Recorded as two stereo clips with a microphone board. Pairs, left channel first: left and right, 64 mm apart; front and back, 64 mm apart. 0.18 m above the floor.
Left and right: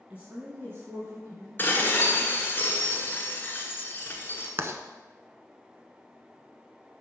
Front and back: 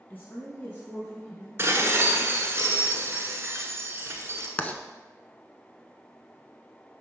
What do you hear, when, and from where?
0.1 s a woman speaking: 35° right, 1.6 m; by 1.5 s 65° right, 2 m
1.6 s dishes clattering: 140° left, 1.4 m
4.6 s writing: 60° right, 0.7 m